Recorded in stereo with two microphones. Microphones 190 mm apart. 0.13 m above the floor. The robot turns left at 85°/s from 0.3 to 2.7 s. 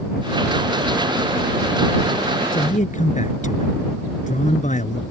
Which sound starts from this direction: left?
A man speaking, at 2.5 s.